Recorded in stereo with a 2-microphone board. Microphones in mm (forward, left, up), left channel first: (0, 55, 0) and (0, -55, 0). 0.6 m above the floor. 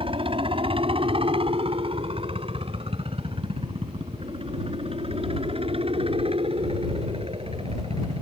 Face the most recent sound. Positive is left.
turn(degrees=-60)  # may be behind; listen again after turning